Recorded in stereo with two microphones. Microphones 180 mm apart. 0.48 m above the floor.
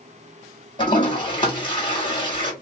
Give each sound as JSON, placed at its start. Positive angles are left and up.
{"t": 0.8, "sound": "a toilet flushing", "side_deg": 25, "distance_m": 1.5}